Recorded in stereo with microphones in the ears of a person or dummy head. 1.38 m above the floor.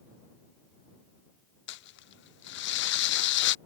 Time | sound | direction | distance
1.7 | crumpling | 55° left (ahead or behind) | ?